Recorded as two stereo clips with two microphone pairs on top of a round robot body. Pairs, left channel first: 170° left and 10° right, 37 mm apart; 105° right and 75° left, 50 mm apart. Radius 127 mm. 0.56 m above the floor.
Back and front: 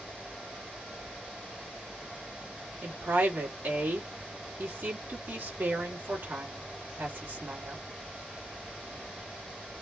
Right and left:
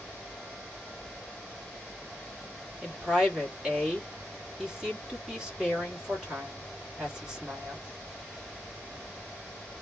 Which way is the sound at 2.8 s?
5° right.